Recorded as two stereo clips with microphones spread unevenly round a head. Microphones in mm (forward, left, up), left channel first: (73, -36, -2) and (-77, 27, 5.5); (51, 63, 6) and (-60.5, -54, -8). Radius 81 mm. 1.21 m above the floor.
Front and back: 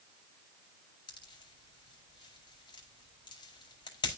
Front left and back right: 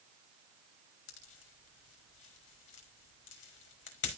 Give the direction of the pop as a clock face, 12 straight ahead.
11 o'clock.